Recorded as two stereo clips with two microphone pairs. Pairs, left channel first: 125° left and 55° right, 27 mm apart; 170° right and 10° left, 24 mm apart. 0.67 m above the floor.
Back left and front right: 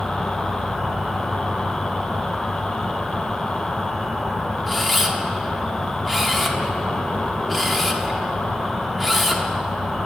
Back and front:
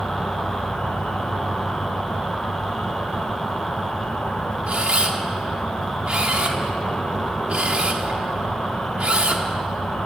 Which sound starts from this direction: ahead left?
A camera shutter, at 4.7 s.